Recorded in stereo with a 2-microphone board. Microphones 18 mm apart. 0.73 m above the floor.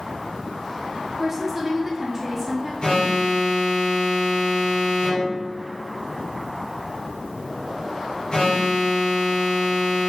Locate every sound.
1.2 s a woman speaking: 25° right (ahead or behind), 1.3 m
2.8 s an alarm: 55° left (ahead or behind), 1.7 m